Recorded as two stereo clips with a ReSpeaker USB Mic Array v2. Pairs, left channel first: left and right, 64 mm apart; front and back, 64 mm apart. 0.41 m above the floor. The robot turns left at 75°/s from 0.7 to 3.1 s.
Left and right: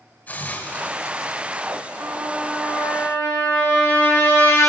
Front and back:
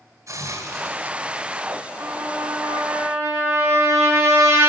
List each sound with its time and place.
0.3 s a hiss: 150° left, 1.7 m; by 1.8 s 65° left, 1.7 m
2.0 s a trumpet: 145° right, 3.5 m; by 4.7 s 135° left, 3.5 m